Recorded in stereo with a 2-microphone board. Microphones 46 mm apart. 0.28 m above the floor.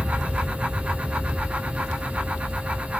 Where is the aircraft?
15° right (ahead or behind); by 3.0 s 40° right (ahead or behind).